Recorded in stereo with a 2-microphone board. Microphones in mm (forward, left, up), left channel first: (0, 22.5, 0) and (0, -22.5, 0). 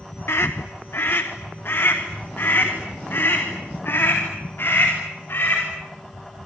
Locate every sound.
0.3 s a scream: 70° left (ahead or behind), 0.9 m; by 5.6 s 55° left (ahead or behind), 5 m